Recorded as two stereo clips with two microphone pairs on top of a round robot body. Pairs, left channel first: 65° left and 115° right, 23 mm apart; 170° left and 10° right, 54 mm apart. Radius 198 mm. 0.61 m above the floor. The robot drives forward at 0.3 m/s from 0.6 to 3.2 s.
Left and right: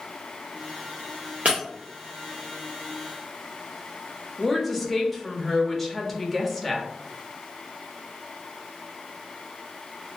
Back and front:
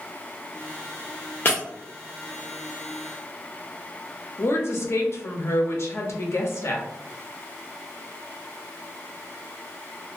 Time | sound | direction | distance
1.4 | breaking glass | 135° right | 0.5 m
4.4 | a woman speaking | 150° left | 0.9 m